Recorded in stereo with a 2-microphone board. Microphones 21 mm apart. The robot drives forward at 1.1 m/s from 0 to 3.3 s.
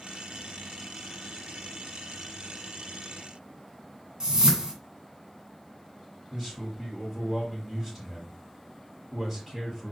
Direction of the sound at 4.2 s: 30° right (ahead or behind).